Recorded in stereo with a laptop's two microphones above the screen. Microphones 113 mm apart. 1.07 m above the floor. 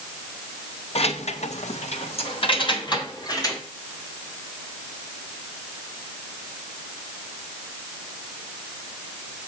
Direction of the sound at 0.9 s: 65° left (ahead or behind).